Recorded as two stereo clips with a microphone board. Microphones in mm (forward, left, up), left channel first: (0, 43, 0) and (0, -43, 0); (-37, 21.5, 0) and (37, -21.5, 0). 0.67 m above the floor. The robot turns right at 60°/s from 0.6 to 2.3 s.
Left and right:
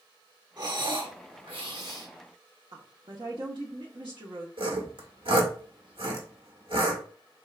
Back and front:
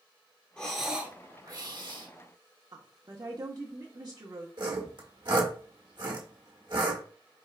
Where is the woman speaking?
70° right, 1.0 m.